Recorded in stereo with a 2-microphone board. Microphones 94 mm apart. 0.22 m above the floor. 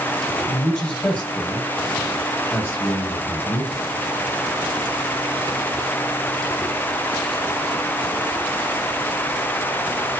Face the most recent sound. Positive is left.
turn(degrees=25)  # may be behind; listen again after turning